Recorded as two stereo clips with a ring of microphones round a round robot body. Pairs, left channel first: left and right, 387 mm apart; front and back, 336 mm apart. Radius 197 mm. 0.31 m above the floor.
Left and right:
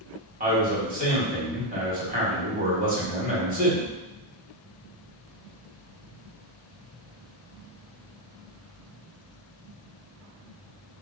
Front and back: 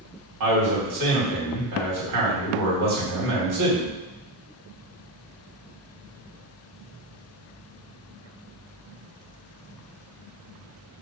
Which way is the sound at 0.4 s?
155° right.